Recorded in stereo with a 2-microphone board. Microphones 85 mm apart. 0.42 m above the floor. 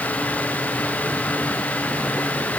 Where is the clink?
I don't hear a clink.